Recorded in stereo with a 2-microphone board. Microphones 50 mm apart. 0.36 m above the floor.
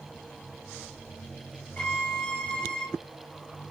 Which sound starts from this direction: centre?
A violin, at 1.8 s.